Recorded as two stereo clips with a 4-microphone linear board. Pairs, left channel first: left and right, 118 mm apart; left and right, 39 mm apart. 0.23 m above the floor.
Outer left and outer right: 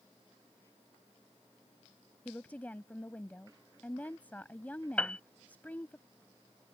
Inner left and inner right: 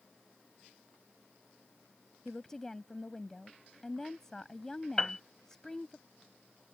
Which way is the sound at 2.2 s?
15° left (ahead or behind).